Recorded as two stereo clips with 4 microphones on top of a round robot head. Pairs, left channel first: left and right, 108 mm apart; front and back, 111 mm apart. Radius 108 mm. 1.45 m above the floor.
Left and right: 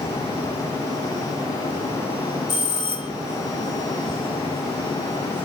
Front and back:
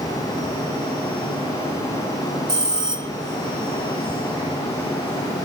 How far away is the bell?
About 0.8 m.